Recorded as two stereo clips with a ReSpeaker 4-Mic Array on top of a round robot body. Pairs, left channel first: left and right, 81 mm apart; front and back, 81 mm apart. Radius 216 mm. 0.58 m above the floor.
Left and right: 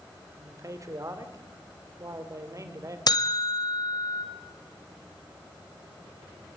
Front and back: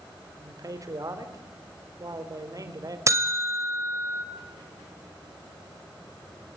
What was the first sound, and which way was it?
A man speaking, 135° right.